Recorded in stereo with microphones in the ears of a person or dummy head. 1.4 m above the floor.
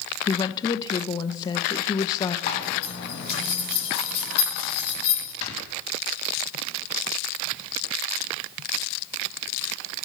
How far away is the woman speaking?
About 0.9 m.